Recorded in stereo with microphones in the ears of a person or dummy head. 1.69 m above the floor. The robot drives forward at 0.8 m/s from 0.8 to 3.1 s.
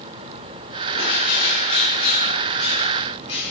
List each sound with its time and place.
0.9 s a bird: 45° left (ahead or behind), 1.6 m; by 3.5 s 25° left (ahead or behind), 2.5 m